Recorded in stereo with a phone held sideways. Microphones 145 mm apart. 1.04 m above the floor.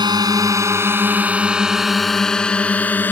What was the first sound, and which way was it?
A drone, 30° right (ahead or behind).